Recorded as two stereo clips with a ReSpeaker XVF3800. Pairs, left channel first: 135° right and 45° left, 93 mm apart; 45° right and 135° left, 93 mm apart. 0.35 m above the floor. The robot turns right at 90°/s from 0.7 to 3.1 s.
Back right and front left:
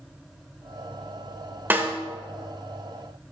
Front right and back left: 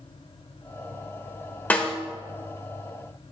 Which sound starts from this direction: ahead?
A snare drum, at 1.7 s.